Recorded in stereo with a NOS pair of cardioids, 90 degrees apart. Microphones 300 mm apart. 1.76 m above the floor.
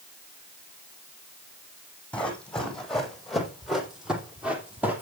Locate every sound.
2.1 s running footsteps: 5° left, 5.5 m; by 5.0 s 5° right, 4 m